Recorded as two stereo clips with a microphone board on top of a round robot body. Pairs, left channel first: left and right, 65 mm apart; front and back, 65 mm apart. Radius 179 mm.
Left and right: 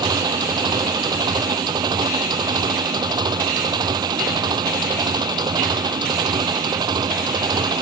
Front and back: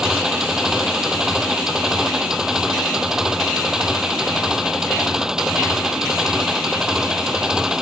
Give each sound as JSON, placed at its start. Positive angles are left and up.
{"t": 0.0, "sound": "an engine running", "azimuth_deg": -100}